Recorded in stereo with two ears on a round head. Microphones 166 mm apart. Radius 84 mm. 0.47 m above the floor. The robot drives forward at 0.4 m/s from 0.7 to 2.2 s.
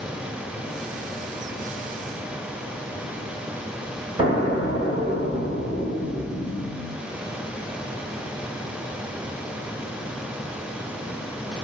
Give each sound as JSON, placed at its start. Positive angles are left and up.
{"t": 4.2, "sound": "an explosion", "side_deg": -25, "distance_m": 1.0}